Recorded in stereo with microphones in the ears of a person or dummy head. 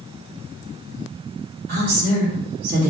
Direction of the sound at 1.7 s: 50° right (ahead or behind).